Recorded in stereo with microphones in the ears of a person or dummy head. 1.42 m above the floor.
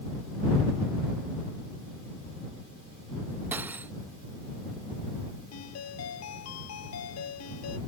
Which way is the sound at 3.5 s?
10° right (ahead or behind).